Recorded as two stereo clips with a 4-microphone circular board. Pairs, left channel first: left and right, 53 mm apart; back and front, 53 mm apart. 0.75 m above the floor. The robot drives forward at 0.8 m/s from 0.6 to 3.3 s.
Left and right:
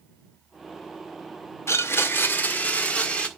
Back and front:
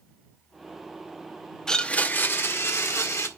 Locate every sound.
1.7 s a blender: 105° left, 0.7 m; by 3.3 s 155° left, 1.6 m